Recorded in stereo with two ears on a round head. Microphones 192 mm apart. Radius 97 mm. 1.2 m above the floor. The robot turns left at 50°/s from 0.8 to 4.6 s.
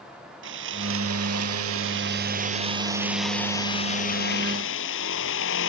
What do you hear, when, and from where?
0.4 s sawing: 60° right; by 5.7 s 110° left